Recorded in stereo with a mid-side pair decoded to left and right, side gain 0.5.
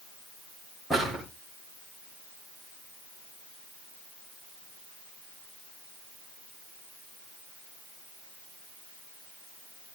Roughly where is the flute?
No flute in this recording.